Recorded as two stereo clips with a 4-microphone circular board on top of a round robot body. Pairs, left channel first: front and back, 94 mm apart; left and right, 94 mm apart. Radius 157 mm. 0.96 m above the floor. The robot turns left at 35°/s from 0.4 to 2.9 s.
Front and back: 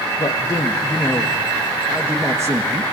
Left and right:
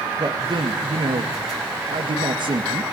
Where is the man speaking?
55° right, 2 m; by 2.8 s 135° right, 2 m.